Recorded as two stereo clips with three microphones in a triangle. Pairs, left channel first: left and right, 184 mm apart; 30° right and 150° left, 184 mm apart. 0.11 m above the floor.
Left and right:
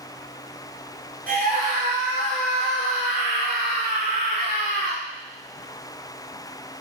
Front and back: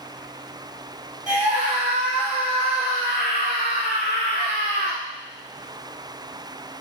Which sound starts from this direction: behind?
A scream, at 1.3 s.